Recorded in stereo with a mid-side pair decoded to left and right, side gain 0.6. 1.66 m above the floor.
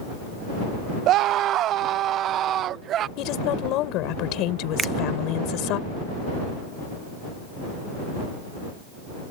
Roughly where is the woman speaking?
Left.